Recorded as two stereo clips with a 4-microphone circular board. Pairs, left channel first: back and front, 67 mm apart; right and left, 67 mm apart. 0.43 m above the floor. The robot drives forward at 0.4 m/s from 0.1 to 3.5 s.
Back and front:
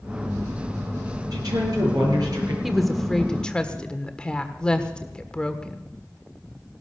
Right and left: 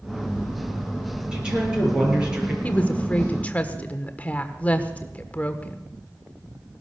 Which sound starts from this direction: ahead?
A woman speaking, at 1.3 s.